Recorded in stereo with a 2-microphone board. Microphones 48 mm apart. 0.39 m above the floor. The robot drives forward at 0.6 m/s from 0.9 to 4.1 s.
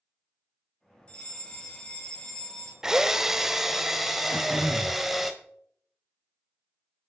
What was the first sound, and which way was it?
A fire alarm, 20° left (ahead or behind).